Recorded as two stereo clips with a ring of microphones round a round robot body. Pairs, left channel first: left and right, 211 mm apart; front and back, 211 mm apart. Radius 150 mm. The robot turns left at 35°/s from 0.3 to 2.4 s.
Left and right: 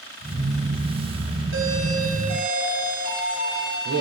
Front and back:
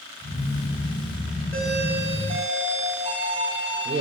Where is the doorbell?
85° right, 3 m; by 4.0 s 115° right, 3 m.